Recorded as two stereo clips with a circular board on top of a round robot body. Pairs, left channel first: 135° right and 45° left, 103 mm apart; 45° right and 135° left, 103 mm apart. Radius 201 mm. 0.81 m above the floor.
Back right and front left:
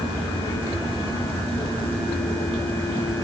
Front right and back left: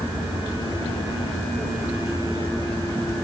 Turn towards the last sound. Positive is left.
No sound to turn to.